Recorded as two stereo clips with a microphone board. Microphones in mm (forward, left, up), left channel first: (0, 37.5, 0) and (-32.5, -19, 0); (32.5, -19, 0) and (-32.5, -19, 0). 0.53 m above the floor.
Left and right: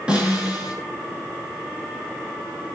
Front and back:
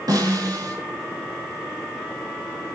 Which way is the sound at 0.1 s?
170° left.